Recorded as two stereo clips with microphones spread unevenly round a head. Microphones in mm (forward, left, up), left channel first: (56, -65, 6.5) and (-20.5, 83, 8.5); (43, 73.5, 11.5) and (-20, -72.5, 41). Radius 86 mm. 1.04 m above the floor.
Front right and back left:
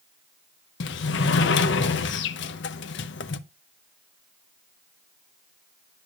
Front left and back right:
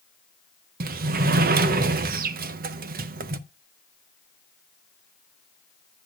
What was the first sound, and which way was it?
A sliding door, 80° right.